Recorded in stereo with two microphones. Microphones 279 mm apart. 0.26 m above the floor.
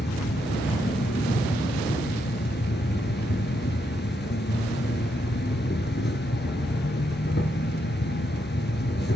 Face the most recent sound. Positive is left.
turn(degrees=40)  # may be behind; listen again after turning